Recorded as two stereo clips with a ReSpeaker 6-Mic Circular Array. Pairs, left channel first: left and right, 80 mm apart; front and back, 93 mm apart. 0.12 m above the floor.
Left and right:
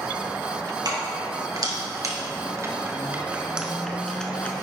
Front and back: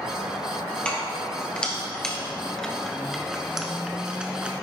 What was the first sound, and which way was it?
Keys jangling, 75° right.